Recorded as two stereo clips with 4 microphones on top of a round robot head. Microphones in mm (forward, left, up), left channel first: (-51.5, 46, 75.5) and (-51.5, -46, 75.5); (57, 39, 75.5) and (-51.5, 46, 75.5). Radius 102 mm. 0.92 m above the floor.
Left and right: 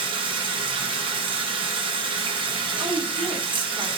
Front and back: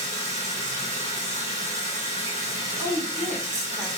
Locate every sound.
0.0 s running water: 115° right, 3 m
2.8 s a woman speaking: 85° right, 2.5 m